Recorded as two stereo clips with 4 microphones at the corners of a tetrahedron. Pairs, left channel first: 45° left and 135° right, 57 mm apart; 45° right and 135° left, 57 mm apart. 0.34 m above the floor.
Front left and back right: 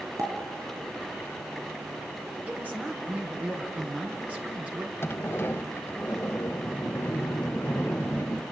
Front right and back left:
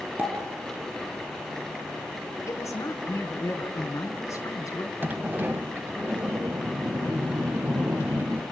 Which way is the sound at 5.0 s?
85° left.